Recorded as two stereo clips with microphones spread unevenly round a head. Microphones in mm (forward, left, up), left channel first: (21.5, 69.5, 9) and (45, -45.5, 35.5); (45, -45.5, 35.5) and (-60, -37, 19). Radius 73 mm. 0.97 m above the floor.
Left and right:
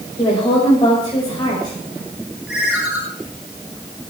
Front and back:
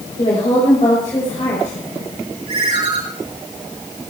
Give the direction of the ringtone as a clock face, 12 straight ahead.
6 o'clock.